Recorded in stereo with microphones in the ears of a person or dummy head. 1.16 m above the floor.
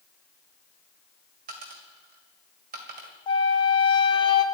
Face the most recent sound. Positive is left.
turn(degrees=30)  # may be behind; listen again after turning